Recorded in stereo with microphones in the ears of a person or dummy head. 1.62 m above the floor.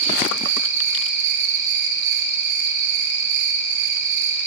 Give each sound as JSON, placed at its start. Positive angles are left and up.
{"t": 0.0, "sound": "an insect", "side_deg": -65, "distance_m": 2.5}